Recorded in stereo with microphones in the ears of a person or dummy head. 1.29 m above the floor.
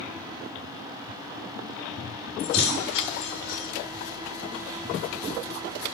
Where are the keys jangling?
80° left, 3 m.